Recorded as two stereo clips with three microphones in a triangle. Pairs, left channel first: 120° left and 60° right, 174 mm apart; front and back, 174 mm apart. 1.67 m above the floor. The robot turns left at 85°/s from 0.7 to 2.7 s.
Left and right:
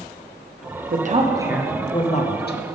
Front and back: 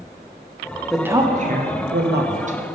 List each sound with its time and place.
0.9 s a woman speaking: 90° right, 0.8 m; by 2.6 s 130° left, 0.8 m